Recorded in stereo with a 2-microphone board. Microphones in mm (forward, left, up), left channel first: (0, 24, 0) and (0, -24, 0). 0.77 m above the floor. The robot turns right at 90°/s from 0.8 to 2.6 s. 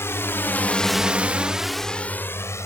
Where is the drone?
65° left (ahead or behind); by 2.6 s 75° left (ahead or behind).